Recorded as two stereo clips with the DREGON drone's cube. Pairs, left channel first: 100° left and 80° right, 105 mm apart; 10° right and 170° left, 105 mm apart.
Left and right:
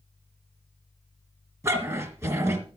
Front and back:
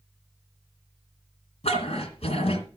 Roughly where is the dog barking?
Ahead.